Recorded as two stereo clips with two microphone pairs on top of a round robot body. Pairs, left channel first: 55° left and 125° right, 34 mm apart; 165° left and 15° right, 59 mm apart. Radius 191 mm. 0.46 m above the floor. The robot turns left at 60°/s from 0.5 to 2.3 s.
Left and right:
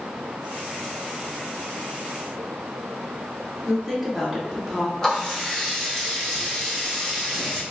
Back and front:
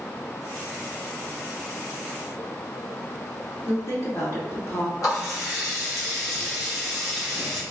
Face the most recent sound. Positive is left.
turn(degrees=130)